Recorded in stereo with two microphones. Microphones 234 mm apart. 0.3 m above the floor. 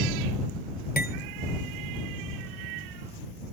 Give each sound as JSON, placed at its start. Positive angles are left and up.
{"t": 1.0, "sound": "cutlery clinking", "side_deg": 40}